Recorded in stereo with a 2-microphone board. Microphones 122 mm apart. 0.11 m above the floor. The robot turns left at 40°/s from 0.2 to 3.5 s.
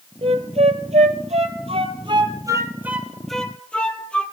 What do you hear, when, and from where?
0.2 s a flute: 50° right (ahead or behind), 0.7 m; by 4.2 s 10° left (ahead or behind), 0.7 m